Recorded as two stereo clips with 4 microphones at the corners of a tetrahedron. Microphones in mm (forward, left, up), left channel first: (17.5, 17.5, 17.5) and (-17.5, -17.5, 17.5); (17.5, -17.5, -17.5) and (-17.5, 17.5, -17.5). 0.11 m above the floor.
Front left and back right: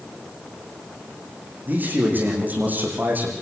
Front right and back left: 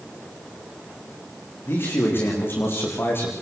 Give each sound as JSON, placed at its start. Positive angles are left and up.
{"t": 1.6, "sound": "a man speaking", "azimuth_deg": -85, "distance_m": 7.5}